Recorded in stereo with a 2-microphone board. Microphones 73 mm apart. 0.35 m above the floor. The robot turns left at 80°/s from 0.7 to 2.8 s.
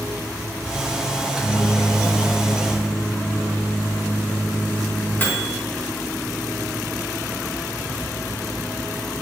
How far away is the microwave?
About 0.7 m.